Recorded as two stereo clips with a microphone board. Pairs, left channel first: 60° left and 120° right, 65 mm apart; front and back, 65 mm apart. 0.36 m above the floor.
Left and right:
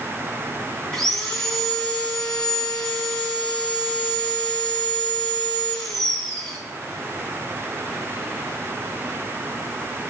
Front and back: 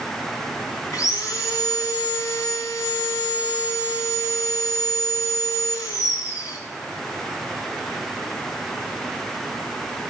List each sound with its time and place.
0.9 s sawing: 20° right, 3.5 m